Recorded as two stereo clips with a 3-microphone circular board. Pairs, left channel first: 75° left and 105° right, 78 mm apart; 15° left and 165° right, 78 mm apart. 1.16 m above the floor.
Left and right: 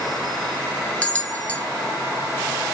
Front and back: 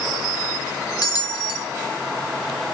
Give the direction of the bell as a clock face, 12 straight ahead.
12 o'clock.